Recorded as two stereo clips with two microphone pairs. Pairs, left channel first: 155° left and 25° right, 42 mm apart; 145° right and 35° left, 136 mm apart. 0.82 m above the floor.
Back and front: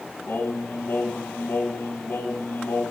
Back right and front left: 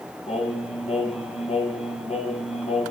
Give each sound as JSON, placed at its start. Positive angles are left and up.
{"t": 0.3, "sound": "singing", "azimuth_deg": -175, "distance_m": 2.0}